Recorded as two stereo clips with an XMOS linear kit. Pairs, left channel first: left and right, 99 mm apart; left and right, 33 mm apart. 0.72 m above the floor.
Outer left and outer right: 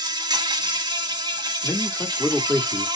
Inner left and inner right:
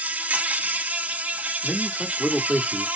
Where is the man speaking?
15° left (ahead or behind), 1.5 m.